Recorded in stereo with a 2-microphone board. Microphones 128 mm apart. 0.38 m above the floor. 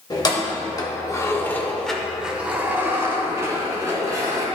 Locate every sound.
0.1 s keys jangling: 30° left (ahead or behind), 1.1 m; by 4.5 s 25° right (ahead or behind), 1.8 m